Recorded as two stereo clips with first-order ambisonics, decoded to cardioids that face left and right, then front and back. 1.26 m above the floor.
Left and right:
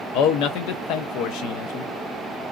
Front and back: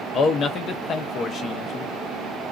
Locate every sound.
0.1 s a man speaking: 60° left, 0.6 m